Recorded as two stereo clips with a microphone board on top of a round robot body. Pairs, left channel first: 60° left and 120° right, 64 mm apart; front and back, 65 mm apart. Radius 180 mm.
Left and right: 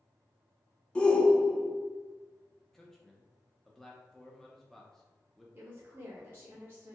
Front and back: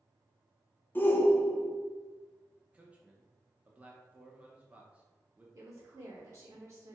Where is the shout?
5° left, 0.8 m.